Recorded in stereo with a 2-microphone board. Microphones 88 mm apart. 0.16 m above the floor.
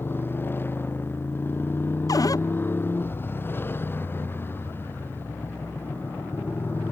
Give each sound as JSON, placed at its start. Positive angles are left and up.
{"t": 0.0, "sound": "a motorcycle", "side_deg": 25}
{"t": 2.1, "sound": "a cupboard door", "side_deg": 45}